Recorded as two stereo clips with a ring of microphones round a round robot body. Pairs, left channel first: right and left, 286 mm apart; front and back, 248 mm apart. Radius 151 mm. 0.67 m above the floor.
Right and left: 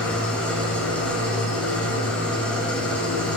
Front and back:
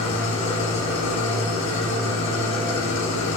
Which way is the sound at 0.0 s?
5° right.